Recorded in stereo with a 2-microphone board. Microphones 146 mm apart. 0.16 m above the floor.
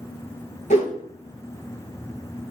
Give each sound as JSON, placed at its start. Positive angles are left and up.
{"t": 0.7, "sound": "a whoosh", "side_deg": 60, "distance_m": 0.6}